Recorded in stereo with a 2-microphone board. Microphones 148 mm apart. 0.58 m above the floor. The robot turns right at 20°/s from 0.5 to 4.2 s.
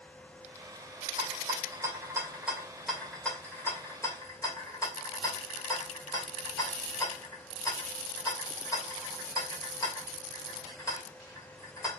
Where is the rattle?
35° right (ahead or behind), 1.9 m; by 12.0 s 25° left (ahead or behind), 1.9 m.